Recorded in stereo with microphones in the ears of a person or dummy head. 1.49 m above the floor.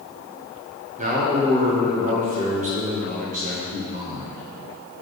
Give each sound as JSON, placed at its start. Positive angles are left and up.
{"t": 1.0, "sound": "a man speaking", "side_deg": -45, "distance_m": 1.5}